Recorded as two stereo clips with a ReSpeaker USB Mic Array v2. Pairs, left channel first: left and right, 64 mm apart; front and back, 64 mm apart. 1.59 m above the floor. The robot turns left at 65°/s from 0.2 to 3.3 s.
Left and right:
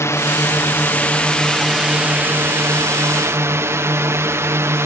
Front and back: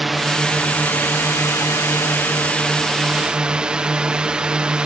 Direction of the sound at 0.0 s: 90° left.